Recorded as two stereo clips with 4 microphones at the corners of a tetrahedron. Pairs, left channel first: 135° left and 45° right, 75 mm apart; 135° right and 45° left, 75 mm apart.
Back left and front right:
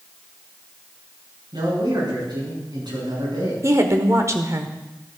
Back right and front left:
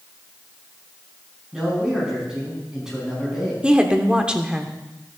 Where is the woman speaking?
25° right, 1.0 m.